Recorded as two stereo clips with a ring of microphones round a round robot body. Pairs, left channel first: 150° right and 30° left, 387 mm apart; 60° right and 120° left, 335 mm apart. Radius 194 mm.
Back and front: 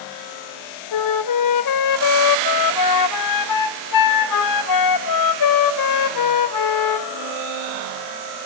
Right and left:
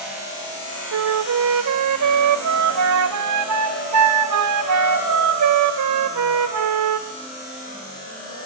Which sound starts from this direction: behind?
A flute, at 0.9 s.